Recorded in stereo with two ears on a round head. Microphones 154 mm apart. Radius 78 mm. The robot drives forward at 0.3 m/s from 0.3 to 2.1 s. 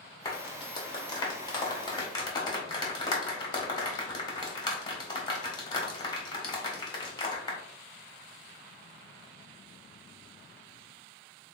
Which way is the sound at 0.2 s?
20° left (ahead or behind).